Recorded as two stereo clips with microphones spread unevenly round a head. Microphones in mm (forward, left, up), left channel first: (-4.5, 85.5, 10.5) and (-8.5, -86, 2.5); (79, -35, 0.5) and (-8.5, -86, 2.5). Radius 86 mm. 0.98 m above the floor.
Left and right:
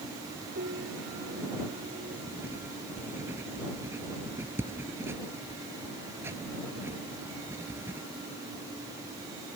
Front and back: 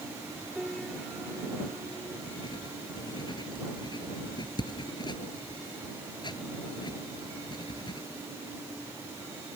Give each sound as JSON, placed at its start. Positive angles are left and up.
{"t": 0.6, "sound": "a piano", "azimuth_deg": -60}
{"t": 2.3, "sound": "writing", "azimuth_deg": -15}